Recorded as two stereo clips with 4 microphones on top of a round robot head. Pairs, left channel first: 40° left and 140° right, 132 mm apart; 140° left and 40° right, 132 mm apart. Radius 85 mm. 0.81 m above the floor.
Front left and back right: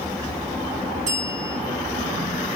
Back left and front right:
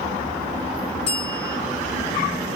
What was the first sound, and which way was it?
A bell, 175° right.